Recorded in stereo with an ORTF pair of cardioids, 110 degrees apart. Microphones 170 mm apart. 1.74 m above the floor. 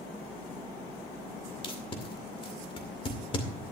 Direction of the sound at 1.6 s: 35° left.